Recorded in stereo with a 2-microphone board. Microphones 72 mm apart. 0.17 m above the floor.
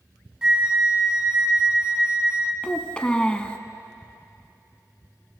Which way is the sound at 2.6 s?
15° left (ahead or behind).